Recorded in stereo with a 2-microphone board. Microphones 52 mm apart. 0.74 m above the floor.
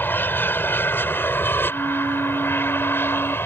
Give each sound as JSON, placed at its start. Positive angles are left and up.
{"t": 0.0, "sound": "an aircraft", "side_deg": 45}
{"t": 1.7, "sound": "a flute", "side_deg": -75}